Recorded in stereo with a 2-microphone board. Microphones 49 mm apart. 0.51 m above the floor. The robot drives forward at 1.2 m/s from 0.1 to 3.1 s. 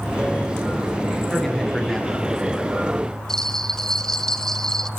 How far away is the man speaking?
About 6.5 m.